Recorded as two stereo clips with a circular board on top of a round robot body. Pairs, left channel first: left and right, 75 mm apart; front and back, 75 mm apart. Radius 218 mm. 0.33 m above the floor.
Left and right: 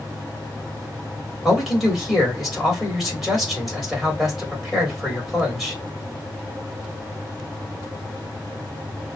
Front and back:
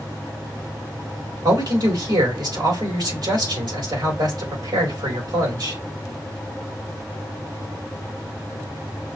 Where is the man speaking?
Straight behind, 3.5 m.